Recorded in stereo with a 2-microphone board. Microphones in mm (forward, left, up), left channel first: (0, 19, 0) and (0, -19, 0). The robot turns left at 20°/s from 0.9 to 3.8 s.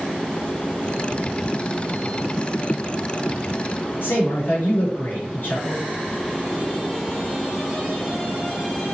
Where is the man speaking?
75° left (ahead or behind), 4 m.